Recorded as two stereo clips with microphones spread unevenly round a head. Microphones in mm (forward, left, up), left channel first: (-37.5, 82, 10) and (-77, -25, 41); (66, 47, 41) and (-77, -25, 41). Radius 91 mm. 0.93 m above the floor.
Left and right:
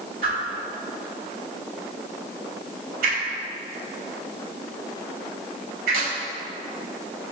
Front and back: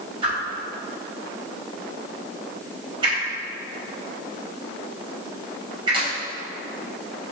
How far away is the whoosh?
About 3 m.